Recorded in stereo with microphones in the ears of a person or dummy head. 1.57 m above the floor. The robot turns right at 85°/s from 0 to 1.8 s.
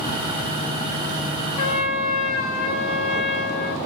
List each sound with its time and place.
1.6 s a trumpet: 35° left (ahead or behind), 0.9 m; by 3.8 s 55° left (ahead or behind), 0.9 m